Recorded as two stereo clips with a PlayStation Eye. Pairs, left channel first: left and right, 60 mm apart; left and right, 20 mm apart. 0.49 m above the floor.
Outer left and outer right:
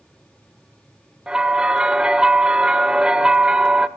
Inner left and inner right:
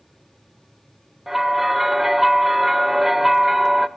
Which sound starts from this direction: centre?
A bell, at 1.3 s.